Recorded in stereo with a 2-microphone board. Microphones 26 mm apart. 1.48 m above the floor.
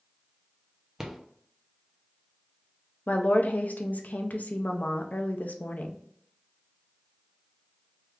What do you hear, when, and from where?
1.0 s a rattle: 15° right (ahead or behind), 0.6 m
3.1 s a woman speaking: 70° left (ahead or behind), 0.5 m